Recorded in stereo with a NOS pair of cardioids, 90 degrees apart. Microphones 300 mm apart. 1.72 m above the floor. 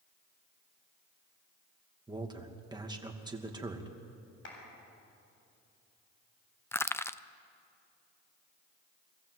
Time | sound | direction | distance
2.1 | a man speaking | 15° right | 2.5 m
4.5 | a clap | 40° left | 7.5 m
6.7 | crushing | 10° left | 0.6 m